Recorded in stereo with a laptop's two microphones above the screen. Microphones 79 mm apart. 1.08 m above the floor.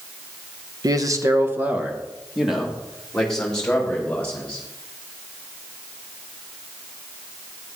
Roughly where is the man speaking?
Right.